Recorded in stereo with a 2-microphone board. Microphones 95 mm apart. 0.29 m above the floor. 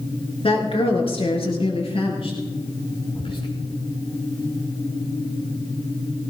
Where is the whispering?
70° left (ahead or behind), 4.5 m.